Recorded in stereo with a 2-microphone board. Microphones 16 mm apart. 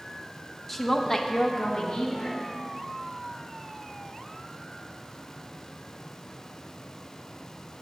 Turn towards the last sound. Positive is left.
turn(degrees=70)  # may be behind; listen again after turning